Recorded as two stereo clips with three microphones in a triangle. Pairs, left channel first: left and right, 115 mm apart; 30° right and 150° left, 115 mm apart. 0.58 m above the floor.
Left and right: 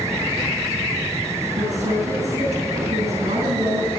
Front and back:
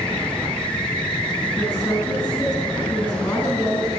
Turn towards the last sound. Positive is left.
turn(degrees=-100)